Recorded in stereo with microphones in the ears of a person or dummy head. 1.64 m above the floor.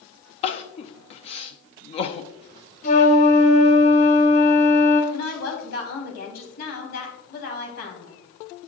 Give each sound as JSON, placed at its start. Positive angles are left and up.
{"t": 0.4, "sound": "crying", "side_deg": 30, "distance_m": 0.5}
{"t": 2.8, "sound": "a flute", "side_deg": 35, "distance_m": 0.9}
{"t": 5.1, "sound": "a woman speaking", "side_deg": 55, "distance_m": 3.5}